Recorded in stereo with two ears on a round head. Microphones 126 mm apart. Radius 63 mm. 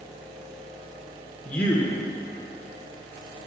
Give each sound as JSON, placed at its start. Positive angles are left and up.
{"t": 1.4, "sound": "a man speaking", "side_deg": 10, "distance_m": 0.8}